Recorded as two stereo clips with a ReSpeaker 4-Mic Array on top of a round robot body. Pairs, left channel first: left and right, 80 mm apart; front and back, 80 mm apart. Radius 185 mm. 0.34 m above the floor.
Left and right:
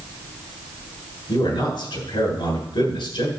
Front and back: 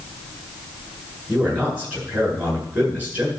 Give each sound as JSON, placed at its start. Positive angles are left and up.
{"t": 1.3, "sound": "a man speaking", "azimuth_deg": 105, "distance_m": 8.5}